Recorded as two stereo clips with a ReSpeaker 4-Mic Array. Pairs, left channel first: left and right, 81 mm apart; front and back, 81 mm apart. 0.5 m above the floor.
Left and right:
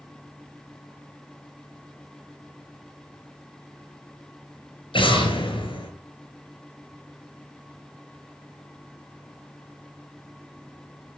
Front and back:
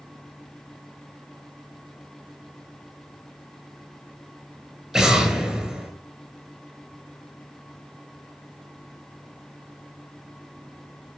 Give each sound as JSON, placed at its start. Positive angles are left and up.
{"t": 4.9, "sound": "an explosion", "azimuth_deg": 95, "distance_m": 3.0}